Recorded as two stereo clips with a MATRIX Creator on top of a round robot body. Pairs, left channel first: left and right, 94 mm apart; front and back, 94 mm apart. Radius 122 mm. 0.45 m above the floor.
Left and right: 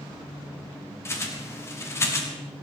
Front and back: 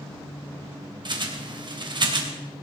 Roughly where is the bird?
Behind left.